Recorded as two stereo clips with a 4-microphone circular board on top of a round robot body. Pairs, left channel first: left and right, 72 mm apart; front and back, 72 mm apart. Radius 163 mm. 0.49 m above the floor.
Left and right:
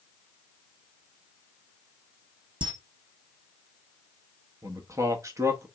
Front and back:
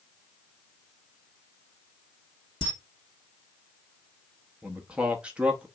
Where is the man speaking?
115° right, 0.9 m.